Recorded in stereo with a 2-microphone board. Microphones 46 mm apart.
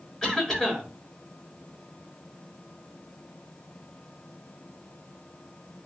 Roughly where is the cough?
Centre.